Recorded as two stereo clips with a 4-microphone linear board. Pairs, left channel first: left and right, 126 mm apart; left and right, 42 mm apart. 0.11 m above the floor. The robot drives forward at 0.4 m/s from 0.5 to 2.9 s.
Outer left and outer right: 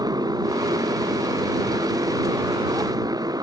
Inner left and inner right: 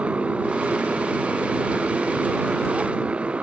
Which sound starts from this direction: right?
A motorcycle, at 0.0 s.